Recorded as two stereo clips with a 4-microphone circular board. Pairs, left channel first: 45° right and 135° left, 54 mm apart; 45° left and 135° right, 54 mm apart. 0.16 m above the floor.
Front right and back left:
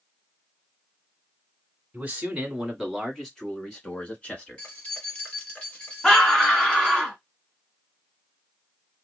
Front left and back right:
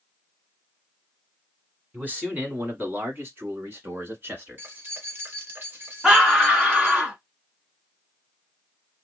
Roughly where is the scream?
Right.